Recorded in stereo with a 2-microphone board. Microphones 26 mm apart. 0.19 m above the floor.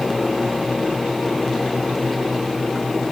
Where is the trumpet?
I don't hear a trumpet.